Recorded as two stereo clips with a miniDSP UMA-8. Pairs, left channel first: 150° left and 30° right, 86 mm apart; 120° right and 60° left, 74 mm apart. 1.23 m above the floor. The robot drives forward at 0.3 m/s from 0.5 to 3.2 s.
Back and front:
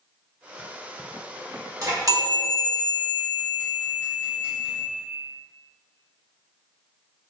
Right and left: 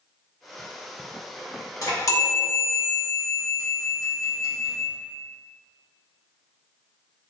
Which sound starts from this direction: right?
A chime, at 1.8 s.